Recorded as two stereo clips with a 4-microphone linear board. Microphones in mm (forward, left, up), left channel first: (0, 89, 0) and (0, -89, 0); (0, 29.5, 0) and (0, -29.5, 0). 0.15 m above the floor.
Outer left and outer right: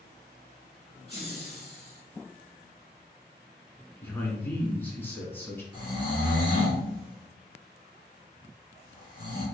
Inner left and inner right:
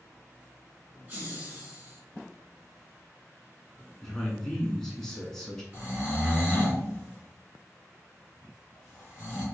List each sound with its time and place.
1.1 s laughter: 20° right (ahead or behind), 1.9 m
4.0 s a man speaking: 10° left (ahead or behind), 1.2 m
5.7 s snoring: 25° right (ahead or behind), 1.8 m